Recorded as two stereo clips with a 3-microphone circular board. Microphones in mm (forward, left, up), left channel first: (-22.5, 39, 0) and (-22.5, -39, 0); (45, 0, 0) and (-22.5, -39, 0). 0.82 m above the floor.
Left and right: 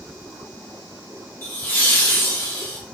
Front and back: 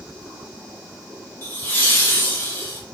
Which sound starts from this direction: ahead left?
Laughter, at 1.4 s.